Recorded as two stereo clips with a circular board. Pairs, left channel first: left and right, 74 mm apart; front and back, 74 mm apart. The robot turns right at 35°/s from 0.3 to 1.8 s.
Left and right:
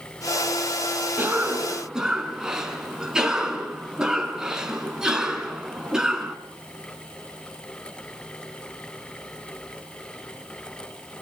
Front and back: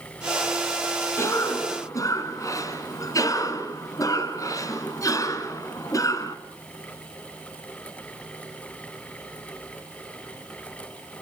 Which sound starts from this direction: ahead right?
A cough, at 1.2 s.